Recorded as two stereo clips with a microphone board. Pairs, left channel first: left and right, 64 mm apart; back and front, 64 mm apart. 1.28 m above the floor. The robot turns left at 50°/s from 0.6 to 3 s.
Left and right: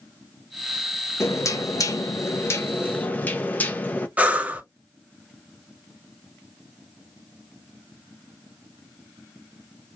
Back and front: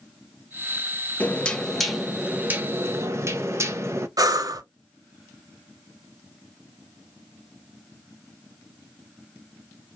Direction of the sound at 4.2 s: 20° right.